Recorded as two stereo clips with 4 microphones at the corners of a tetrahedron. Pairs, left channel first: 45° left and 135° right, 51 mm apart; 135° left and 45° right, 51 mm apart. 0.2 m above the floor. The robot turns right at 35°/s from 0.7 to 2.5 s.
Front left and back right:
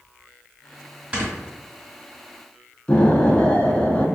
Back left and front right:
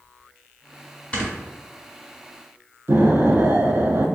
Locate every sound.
1.1 s snoring: 175° right, 1.6 m; by 1.3 s 170° right, 1.6 m
2.9 s an explosion: 20° right, 0.6 m